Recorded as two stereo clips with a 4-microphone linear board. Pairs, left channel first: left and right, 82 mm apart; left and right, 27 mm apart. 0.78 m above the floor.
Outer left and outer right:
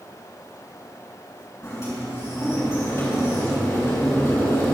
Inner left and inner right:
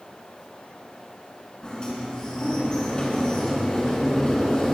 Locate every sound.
1.6 s a sliding door: 35° left (ahead or behind), 4 m